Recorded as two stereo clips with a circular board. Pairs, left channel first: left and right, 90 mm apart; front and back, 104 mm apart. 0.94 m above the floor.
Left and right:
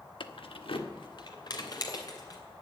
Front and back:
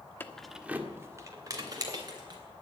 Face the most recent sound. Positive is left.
turn(degrees=135)